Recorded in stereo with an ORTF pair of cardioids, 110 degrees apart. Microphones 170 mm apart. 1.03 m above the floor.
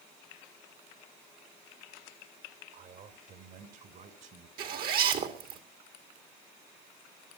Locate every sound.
2.7 s a man speaking: 65° right, 2.5 m; by 4.5 s 55° right, 3.5 m
4.6 s a zipper: 65° right, 2.5 m